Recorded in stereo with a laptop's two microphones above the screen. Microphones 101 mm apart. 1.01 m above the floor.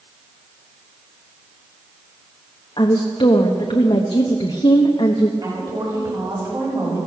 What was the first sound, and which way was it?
A woman speaking, 55° left (ahead or behind).